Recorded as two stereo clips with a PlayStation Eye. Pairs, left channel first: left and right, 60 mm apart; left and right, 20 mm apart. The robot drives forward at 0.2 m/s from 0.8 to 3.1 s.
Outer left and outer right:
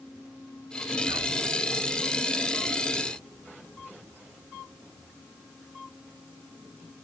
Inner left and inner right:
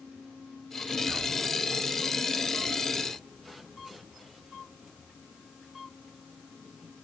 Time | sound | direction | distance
1.1 | whispering | 50° right (ahead or behind) | 1.5 m